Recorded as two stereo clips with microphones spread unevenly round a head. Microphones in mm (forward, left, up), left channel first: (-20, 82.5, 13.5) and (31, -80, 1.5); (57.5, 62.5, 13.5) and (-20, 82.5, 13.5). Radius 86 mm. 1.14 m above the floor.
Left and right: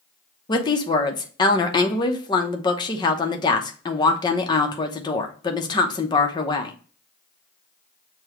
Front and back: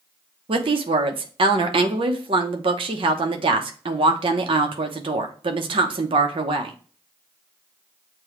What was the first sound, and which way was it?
A woman speaking, 175° left.